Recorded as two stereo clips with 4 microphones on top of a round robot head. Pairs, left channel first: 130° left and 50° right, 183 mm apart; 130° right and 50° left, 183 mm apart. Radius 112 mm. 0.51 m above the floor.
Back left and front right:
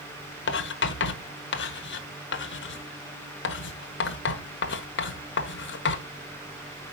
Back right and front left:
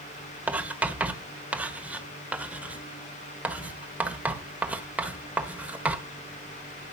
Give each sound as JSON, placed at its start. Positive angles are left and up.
{"t": 0.5, "sound": "writing", "azimuth_deg": 130, "distance_m": 1.3}